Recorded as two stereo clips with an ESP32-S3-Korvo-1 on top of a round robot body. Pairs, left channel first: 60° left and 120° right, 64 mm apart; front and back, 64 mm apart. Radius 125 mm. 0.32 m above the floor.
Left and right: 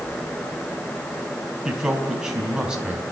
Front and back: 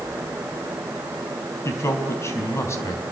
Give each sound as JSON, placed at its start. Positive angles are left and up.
{"t": 1.6, "sound": "a man speaking", "azimuth_deg": -40, "distance_m": 3.5}